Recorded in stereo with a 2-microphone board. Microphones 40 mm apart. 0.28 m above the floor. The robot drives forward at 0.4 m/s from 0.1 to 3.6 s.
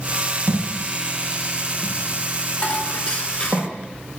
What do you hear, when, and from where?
0.5 s a thud: 55° right (ahead or behind), 5.5 m; by 3.6 s 45° right (ahead or behind), 6 m
2.6 s dishes clattering: 20° left (ahead or behind), 2.0 m